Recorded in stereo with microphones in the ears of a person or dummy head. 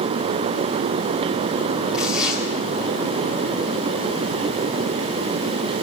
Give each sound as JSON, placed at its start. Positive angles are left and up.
{"t": 1.9, "sound": "tearing paper", "side_deg": -5, "distance_m": 8.0}